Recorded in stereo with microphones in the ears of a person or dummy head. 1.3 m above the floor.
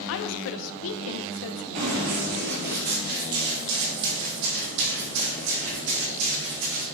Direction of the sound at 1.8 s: 35° right (ahead or behind).